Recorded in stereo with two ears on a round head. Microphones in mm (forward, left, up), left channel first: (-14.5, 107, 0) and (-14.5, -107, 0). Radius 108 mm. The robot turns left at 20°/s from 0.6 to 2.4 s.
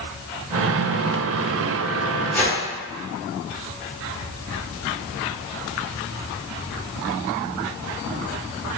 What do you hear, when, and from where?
2.3 s a whoosh: 10° left (ahead or behind), 0.7 m